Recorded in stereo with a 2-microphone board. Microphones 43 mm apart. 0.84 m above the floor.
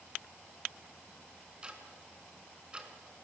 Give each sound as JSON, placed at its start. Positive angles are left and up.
{"t": 1.6, "sound": "ticking", "side_deg": -20, "distance_m": 3.5}